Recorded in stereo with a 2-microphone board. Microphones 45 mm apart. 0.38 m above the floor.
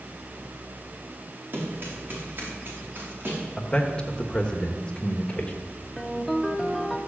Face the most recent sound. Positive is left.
turn(degrees=0)  # may be behind; listen again after turning